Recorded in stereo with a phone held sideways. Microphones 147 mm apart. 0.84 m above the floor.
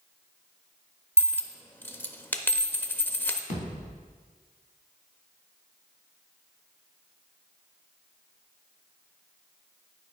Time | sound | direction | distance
1.2 | a dropped coin | 15° left (ahead or behind) | 0.5 m
3.5 | a thud | 65° left (ahead or behind) | 2.5 m